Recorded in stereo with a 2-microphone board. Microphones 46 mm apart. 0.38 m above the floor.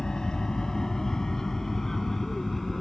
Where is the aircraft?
15° left (ahead or behind); by 2.8 s 5° left (ahead or behind).